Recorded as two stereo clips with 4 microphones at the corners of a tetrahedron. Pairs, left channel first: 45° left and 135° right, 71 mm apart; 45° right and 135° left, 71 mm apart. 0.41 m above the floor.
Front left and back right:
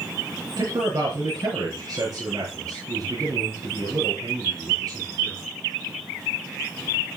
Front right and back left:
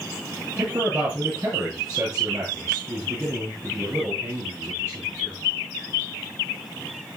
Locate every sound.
0.6 s a man speaking: 175° right, 6.5 m